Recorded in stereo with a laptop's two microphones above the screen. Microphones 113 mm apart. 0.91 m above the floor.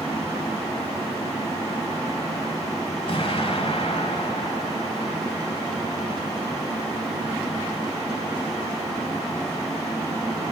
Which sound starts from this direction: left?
An explosion, at 3.1 s.